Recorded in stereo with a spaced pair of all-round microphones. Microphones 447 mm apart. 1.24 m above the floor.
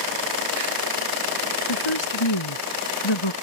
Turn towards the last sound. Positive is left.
turn(degrees=85)